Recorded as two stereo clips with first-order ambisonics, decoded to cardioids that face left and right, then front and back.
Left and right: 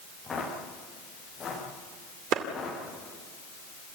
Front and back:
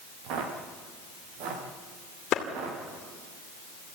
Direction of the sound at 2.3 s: 50° right.